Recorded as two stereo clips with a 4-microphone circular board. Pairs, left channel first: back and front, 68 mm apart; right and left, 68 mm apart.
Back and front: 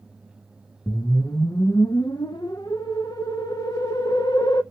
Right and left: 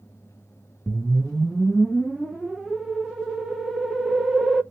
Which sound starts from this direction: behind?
A whoosh, at 0.9 s.